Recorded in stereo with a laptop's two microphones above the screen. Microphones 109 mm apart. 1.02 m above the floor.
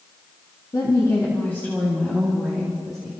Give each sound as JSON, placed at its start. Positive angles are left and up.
{"t": 0.7, "sound": "a woman speaking", "side_deg": 45, "distance_m": 1.8}